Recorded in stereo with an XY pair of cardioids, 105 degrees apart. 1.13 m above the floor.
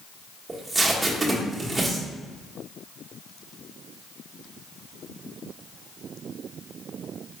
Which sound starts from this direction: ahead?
Tape being pulled, at 0.5 s.